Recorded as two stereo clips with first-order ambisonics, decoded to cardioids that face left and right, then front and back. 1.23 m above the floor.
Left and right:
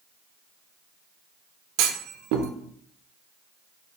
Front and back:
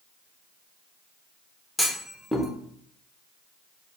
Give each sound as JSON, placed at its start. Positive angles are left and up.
{"t": 1.8, "sound": "a clunk", "azimuth_deg": -80, "distance_m": 0.5}